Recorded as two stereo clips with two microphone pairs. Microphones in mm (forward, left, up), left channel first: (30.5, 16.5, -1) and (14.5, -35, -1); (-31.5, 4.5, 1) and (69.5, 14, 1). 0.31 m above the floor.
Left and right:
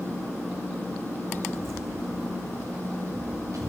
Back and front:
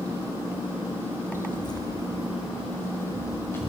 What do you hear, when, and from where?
1.3 s footsteps: 145° right, 0.8 m; by 3.7 s 105° right, 3.5 m